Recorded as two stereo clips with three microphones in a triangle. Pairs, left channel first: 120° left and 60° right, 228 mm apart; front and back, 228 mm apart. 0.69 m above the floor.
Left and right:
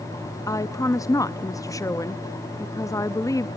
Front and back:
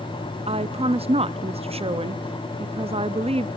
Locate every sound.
0.5 s a woman speaking: 175° left, 0.5 m